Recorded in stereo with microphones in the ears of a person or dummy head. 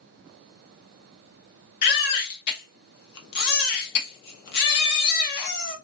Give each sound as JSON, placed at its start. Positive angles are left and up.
{"t": 1.8, "sound": "a baby crying", "side_deg": 55, "distance_m": 0.9}